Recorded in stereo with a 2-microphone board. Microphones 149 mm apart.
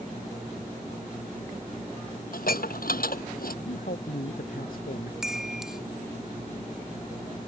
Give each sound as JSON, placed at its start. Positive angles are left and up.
{"t": 2.3, "sound": "dishes clattering", "side_deg": 75}
{"t": 3.6, "sound": "a man speaking", "side_deg": 70}
{"t": 5.2, "sound": "a chime", "side_deg": -5}